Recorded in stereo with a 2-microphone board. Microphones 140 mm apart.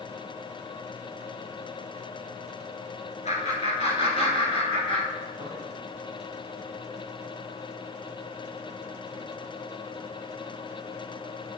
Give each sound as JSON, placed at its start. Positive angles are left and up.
{"t": 3.2, "sound": "laughter", "side_deg": 55, "distance_m": 3.5}